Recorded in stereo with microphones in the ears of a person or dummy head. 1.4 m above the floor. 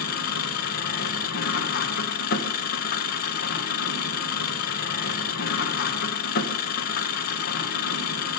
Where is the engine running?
60° left (ahead or behind), 1.0 m.